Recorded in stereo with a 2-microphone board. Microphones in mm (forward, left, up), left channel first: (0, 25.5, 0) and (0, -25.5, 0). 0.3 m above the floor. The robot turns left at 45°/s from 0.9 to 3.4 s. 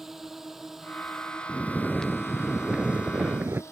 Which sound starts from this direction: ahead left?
Snoring, at 1.5 s.